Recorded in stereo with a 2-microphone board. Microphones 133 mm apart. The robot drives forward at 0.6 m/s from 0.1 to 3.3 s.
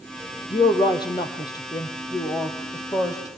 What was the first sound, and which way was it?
A woman speaking, 35° left (ahead or behind).